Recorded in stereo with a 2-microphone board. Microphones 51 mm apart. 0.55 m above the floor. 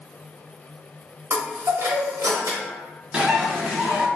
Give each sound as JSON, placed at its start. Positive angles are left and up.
{"t": 1.3, "sound": "a chime", "side_deg": -75, "distance_m": 0.7}
{"t": 3.1, "sound": "a bird", "side_deg": -20, "distance_m": 0.8}